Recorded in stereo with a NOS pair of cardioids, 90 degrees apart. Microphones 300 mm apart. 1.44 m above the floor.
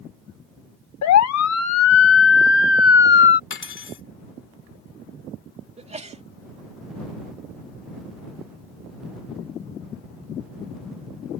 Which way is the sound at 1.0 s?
70° left.